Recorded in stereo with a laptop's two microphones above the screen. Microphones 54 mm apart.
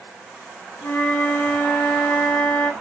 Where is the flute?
60° left (ahead or behind), 1.9 m.